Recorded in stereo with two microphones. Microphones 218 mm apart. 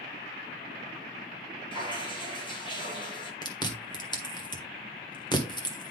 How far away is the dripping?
About 2.5 m.